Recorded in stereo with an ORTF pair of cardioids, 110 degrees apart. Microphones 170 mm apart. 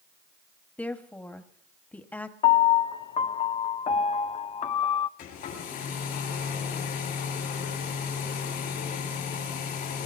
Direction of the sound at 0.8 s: 10° left.